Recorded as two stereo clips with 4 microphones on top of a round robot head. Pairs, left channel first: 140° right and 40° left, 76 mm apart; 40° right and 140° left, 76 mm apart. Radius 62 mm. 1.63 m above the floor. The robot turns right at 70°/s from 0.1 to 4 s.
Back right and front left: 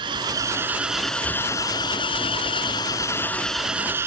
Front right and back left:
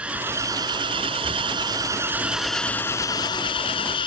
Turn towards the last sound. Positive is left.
turn(degrees=-20)